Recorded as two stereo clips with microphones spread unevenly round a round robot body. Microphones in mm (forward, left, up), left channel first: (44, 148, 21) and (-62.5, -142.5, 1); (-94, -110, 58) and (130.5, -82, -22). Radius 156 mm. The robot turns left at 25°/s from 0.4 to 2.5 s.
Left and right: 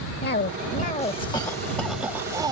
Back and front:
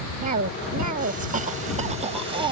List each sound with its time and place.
0.2 s a cough: 15° left; by 2.5 s 35° right